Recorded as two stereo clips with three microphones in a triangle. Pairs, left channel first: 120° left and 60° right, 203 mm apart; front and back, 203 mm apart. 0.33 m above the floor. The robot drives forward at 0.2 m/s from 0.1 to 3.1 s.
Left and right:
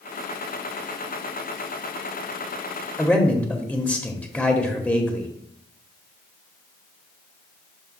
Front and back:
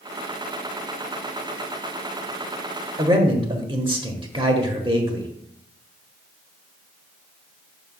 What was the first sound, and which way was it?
A man speaking, 165° right.